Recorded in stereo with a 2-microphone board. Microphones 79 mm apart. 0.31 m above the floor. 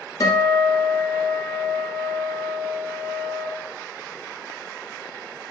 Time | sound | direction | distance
0.2 | a guitar | 60° left (ahead or behind) | 1.0 m